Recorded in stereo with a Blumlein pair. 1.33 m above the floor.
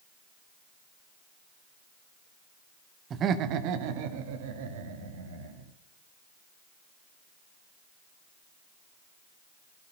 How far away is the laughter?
About 1.1 m.